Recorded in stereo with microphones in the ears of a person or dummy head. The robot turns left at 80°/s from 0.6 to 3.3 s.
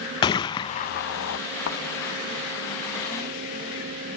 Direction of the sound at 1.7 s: 60° left (ahead or behind).